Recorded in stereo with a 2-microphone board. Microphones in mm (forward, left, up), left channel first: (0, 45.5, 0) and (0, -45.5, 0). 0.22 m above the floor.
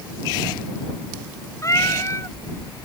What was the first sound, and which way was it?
A cat meowing, 35° left (ahead or behind).